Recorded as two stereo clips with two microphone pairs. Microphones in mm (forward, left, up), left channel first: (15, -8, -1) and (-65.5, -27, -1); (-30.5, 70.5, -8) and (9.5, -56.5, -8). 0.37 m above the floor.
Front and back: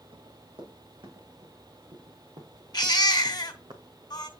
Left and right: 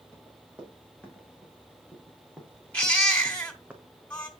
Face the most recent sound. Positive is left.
turn(degrees=30)